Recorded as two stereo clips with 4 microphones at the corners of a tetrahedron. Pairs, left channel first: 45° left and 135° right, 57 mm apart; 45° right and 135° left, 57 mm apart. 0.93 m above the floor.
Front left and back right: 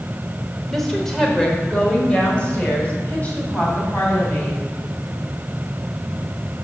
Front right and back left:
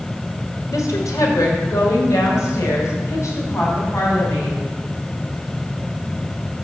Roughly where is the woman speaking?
Ahead right.